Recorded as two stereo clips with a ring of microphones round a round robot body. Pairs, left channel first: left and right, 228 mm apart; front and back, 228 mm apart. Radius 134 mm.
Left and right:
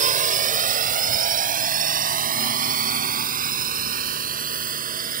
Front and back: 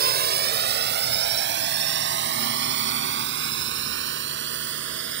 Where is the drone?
140° right; by 5.2 s 145° right.